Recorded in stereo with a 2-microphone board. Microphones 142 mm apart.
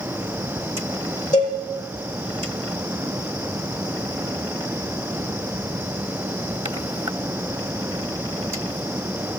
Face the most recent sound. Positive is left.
turn(degrees=60)  # may be behind; listen again after turning